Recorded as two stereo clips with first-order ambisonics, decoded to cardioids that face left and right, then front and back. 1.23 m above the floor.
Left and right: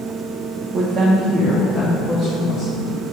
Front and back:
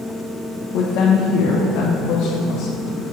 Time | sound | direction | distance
0.7 | a woman speaking | 30° right | 0.6 m